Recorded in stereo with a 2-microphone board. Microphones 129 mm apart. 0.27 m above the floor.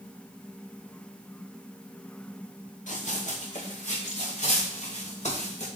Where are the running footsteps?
70° left (ahead or behind), 2.5 m; by 5.7 s 60° left (ahead or behind), 4 m.